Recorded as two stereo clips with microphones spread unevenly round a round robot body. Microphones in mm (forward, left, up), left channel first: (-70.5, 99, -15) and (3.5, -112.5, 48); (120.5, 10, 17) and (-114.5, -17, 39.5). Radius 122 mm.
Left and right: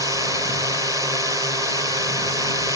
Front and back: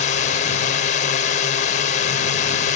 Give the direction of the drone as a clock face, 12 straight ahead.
11 o'clock.